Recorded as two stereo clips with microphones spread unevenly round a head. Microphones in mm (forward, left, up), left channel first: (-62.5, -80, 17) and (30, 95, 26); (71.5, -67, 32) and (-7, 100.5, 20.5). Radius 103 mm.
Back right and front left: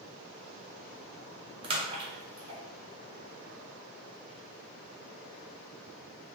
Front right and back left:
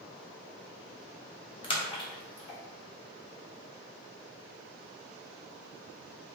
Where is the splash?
5° right, 0.9 m.